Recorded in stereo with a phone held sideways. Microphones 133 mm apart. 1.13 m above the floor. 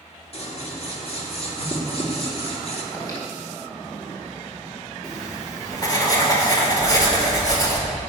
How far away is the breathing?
About 4 m.